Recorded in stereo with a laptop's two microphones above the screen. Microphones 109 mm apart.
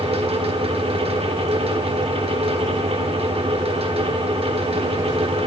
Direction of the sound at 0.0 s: 65° right (ahead or behind).